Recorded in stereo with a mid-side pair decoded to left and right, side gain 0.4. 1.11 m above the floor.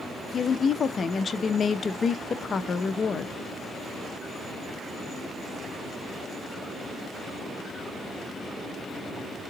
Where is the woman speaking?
45° left, 0.7 m.